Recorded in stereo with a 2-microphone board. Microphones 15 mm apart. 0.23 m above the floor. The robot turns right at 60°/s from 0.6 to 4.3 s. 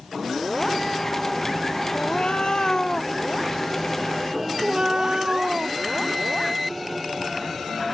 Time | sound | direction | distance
1.9 | a cat meowing | 90° left | ?